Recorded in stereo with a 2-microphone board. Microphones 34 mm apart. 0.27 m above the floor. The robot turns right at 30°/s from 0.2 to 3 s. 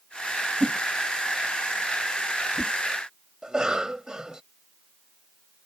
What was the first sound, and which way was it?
A whoosh, 35° right (ahead or behind).